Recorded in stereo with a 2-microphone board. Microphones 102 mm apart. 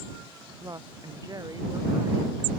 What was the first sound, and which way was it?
A woman speaking, 40° right (ahead or behind).